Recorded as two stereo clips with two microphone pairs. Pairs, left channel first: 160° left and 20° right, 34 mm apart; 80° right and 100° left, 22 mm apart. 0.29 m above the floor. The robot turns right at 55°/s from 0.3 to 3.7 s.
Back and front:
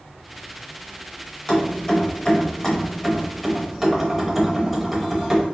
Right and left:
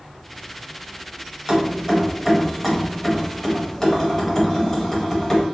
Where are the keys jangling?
135° left, 0.6 m; by 5.4 s 105° right, 0.6 m.